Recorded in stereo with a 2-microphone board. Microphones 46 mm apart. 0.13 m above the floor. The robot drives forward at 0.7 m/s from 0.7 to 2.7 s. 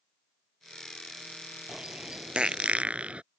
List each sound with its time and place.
1.7 s a bird: 15° right (ahead or behind); by 3.2 s 30° right (ahead or behind)